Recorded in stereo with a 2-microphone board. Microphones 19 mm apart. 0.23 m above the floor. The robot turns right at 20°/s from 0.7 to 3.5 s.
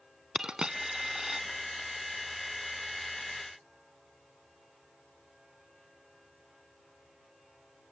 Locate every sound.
0.3 s a dropped coin: 45° right (ahead or behind), 0.8 m; by 1.4 s 35° right (ahead or behind), 0.8 m